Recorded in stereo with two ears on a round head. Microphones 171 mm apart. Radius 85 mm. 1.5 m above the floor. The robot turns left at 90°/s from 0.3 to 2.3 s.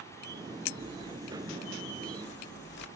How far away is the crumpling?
About 1.8 m.